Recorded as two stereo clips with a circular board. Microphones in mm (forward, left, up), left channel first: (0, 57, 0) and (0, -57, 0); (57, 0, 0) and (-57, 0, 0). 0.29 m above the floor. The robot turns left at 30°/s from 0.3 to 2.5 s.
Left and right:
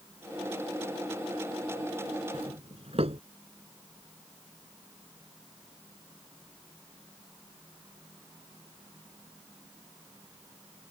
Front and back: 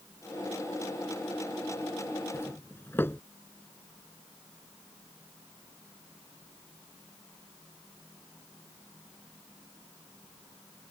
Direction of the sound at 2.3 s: 65° right.